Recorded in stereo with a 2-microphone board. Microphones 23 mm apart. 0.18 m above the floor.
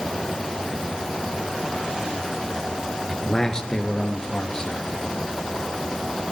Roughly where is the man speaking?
Left.